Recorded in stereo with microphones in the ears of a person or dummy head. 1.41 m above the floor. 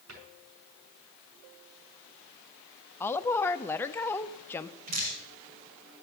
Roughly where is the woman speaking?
Centre.